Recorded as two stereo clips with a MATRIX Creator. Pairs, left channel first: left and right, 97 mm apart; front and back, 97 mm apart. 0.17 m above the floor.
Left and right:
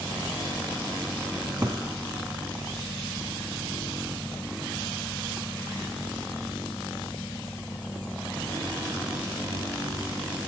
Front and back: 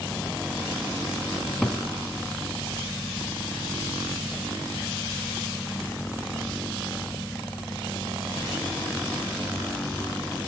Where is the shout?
I don't hear a shout.